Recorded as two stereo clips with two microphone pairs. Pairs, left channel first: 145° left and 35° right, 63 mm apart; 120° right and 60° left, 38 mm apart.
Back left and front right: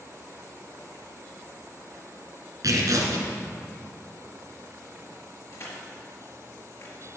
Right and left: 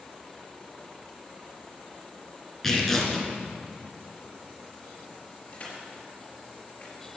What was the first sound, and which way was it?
Tearing paper, 40° right.